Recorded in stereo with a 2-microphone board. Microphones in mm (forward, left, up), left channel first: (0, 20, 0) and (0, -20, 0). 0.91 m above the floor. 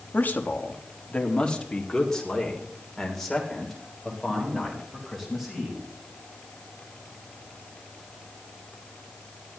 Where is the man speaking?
45° left (ahead or behind), 1.3 m; by 5.8 s 5° right (ahead or behind), 4.5 m.